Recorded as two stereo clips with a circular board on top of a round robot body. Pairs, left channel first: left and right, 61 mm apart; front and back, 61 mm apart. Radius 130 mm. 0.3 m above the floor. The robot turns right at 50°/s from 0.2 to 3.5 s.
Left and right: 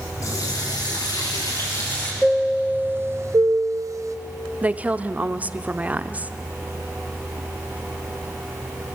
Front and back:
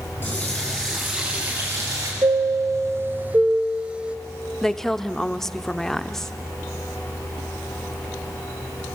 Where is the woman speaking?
75° right, 0.9 m.